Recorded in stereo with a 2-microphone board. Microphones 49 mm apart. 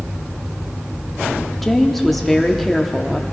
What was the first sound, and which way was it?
A woman speaking, centre (ahead or behind).